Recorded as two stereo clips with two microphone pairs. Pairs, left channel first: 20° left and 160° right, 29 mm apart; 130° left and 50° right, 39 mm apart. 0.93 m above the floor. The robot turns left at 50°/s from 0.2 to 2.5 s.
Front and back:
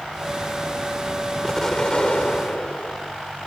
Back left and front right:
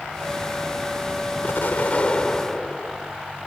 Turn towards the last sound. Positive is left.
turn(degrees=50)